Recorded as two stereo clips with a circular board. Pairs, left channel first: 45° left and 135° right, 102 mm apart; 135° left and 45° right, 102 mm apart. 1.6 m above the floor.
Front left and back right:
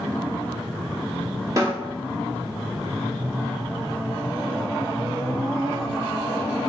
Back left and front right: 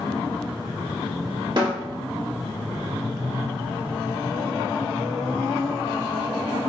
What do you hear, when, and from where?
1.6 s a snare drum: 80° right, 1.5 m